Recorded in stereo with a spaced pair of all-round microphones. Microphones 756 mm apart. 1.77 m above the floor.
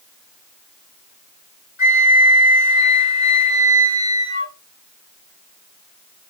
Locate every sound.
1.8 s a flute: 40° left (ahead or behind), 1.3 m